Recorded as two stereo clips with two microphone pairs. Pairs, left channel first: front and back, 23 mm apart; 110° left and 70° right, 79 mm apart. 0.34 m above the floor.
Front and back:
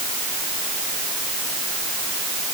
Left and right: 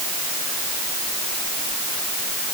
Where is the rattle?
I don't hear a rattle.